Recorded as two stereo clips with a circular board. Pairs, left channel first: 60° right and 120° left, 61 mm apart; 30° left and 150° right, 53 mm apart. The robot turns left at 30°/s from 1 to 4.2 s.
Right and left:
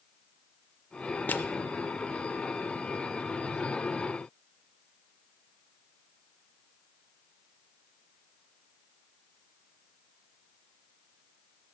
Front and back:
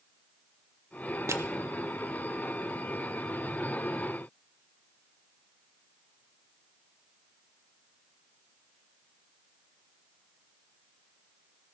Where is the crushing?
120° right, 0.6 m; by 1.4 s 125° right, 0.6 m.